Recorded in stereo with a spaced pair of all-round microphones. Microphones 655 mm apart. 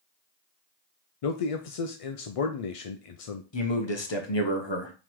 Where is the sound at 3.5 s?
40° left (ahead or behind), 1.0 m.